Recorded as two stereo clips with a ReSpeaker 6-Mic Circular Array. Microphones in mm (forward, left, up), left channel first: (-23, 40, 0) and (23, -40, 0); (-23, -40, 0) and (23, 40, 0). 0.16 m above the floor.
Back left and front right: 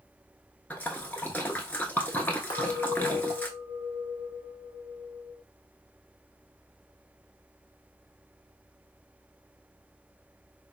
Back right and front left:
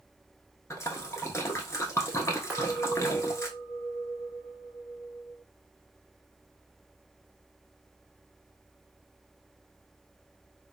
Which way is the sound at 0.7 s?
175° right.